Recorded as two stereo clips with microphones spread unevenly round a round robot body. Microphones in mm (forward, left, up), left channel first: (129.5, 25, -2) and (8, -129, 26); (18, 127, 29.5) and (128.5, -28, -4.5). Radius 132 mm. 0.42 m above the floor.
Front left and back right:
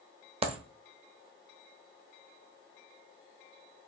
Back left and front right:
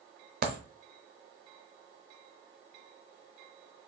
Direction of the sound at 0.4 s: 65° right.